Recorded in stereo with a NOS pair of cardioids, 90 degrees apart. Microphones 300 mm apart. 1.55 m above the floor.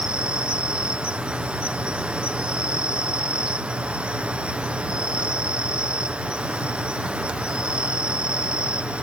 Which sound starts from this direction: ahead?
An insect, at 0.0 s.